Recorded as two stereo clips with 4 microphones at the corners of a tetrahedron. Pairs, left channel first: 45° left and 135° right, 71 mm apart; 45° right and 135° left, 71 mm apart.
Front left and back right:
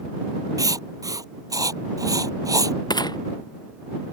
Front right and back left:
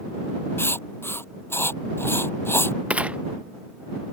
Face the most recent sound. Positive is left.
turn(degrees=60)